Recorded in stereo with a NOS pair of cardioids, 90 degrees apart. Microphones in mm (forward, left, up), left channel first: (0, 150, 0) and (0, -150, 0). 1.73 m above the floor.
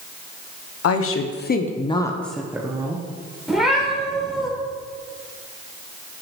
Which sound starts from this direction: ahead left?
A woman speaking, at 0.8 s.